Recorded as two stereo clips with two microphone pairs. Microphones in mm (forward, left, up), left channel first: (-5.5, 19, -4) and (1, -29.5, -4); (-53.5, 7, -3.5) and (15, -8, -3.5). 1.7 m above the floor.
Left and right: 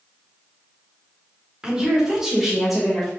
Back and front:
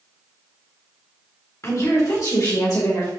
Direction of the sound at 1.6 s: 155° right.